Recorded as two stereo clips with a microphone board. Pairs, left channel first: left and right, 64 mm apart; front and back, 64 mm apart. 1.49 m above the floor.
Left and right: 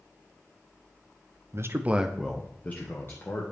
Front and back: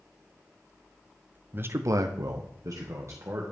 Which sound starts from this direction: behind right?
A man speaking, at 1.5 s.